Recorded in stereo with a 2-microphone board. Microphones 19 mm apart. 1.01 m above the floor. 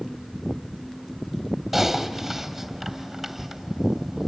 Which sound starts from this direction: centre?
Typing on a keyboard, at 1.7 s.